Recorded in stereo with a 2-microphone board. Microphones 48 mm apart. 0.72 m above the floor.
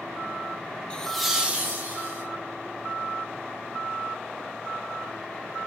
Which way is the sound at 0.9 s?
20° left (ahead or behind).